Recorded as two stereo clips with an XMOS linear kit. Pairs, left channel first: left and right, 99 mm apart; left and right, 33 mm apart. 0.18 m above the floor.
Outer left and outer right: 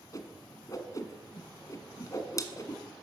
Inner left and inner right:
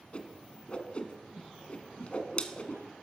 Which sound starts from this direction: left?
A whoosh, at 0.1 s.